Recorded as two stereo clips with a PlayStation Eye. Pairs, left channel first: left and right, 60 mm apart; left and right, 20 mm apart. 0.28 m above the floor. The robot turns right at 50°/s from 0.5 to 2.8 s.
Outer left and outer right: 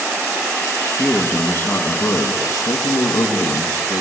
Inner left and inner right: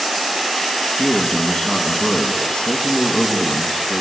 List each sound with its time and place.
1.0 s a man speaking: 10° left, 2.5 m; by 4.0 s 100° left, 2.5 m